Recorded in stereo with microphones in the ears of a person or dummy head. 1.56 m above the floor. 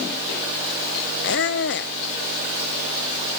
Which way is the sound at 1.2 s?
60° left (ahead or behind).